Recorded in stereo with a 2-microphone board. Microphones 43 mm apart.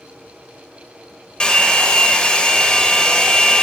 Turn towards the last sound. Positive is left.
turn(degrees=25)  # may be behind; listen again after turning